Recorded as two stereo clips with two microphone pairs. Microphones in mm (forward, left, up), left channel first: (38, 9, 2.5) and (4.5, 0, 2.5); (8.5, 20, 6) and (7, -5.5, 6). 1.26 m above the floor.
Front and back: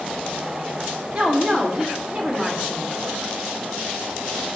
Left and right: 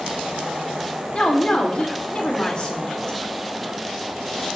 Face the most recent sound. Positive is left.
turn(degrees=145)